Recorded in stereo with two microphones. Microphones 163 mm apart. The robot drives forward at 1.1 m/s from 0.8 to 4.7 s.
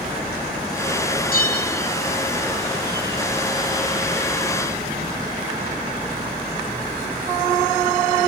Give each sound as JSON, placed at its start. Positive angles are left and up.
{"t": 1.3, "sound": "a bell", "side_deg": 65, "distance_m": 3.5}